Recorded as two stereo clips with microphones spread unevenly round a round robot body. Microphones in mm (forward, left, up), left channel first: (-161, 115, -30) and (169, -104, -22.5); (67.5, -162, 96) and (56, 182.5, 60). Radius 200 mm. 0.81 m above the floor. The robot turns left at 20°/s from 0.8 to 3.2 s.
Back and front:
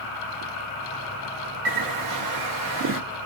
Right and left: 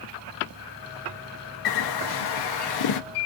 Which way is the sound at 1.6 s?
65° right.